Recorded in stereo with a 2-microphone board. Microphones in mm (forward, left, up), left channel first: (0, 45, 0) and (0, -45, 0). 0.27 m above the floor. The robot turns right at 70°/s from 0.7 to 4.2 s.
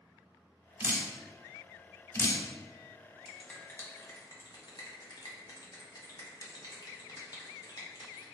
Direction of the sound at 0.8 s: 30° right (ahead or behind).